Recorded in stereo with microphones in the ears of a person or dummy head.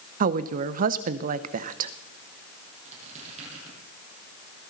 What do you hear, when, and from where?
0.2 s a woman speaking: 45° right (ahead or behind), 0.8 m
2.9 s a squeak: 45° right (ahead or behind), 7.5 m